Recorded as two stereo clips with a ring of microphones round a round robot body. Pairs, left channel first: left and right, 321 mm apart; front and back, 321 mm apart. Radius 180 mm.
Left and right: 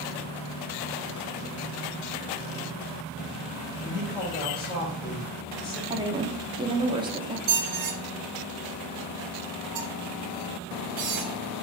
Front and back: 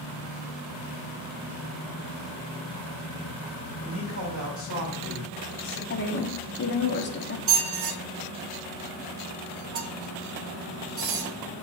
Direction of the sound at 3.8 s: 30° left.